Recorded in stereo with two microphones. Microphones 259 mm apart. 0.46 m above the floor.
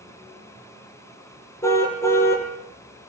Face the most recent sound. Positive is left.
turn(degrees=10)  # may be behind; listen again after turning